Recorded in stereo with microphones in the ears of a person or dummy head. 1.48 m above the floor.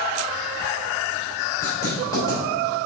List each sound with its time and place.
1.6 s writing: 15° left (ahead or behind), 3 m